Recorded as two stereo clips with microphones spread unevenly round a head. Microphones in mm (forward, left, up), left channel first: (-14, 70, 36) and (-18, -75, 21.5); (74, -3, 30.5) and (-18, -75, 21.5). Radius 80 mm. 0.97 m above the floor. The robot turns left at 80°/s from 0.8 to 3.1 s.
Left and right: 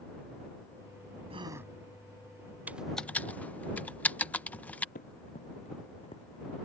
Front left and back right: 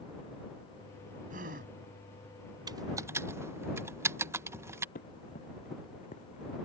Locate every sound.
1.3 s a gasp: 145° right; by 1.7 s 175° right
2.7 s typing on a keyboard: 155° right; by 4.8 s 170° left
5.0 s running footsteps: 50° left; by 6.5 s 25° left